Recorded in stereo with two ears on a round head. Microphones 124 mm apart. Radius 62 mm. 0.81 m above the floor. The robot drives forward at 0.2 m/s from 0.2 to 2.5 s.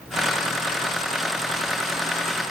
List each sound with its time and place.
Only background noise.